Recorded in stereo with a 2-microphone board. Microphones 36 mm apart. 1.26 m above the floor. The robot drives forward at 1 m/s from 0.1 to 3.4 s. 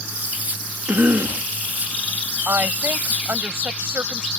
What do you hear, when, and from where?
0.9 s a cough: 75° right (ahead or behind); by 1.5 s 65° right (ahead or behind)
2.5 s a woman speaking: 80° right; by 4.3 s 75° right (ahead or behind)